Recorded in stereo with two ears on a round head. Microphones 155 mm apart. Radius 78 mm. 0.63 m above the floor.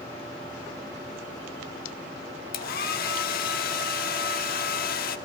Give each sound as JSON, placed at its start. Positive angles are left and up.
{"t": 2.5, "sound": "a hair dryer", "side_deg": 55, "distance_m": 1.2}